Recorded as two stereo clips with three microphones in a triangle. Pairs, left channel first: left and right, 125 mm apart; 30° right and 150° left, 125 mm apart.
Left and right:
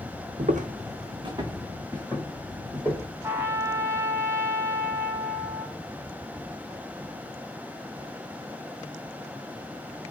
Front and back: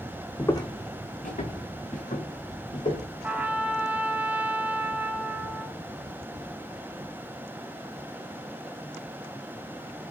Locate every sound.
0.4 s footsteps: 105° right, 0.5 m; by 3.1 s 10° right, 2 m
3.2 s a trumpet: 145° right, 0.6 m